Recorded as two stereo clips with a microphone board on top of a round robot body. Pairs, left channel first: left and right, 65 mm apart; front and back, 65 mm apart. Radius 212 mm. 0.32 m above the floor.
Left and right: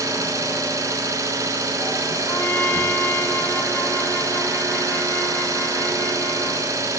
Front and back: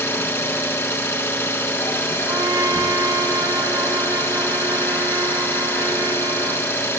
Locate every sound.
0.0 s an engine running: 55° right, 4 m
2.3 s a trumpet: 150° left, 5.5 m